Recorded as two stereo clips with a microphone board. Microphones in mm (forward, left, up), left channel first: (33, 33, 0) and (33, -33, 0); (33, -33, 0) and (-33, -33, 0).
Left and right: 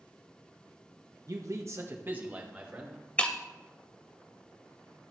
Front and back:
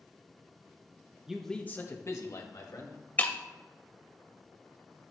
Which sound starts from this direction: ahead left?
Breaking glass, at 3.2 s.